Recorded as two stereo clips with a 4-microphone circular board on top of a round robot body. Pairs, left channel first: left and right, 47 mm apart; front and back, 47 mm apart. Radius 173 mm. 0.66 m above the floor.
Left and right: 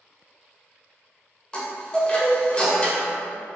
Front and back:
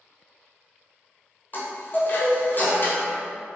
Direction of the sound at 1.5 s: 30° left.